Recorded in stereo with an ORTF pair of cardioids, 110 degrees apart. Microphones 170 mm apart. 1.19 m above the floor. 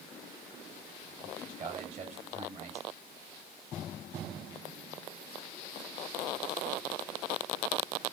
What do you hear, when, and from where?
1.2 s a man speaking: 40° right, 5 m